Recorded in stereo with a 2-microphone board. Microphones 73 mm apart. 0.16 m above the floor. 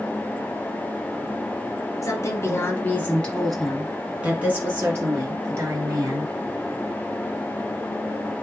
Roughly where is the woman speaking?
Left.